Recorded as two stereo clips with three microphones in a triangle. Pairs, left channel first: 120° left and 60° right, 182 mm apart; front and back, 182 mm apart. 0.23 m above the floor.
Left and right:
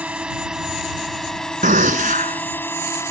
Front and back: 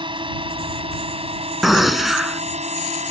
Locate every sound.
0.0 s a drone: 140° right; by 3.1 s 175° right
1.6 s a gunshot: 90° right